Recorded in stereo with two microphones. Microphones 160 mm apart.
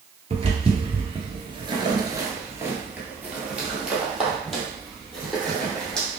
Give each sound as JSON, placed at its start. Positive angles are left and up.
{"t": 0.3, "sound": "footsteps", "side_deg": -40, "distance_m": 1.3}